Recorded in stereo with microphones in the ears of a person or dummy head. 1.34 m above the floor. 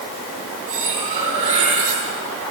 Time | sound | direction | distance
0.7 | cutlery clinking | 30° right (ahead or behind) | 9 m